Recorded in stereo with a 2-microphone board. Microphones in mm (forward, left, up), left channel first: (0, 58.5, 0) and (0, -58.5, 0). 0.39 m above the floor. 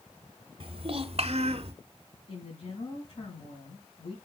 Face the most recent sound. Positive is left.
turn(degrees=55)  # may be behind; listen again after turning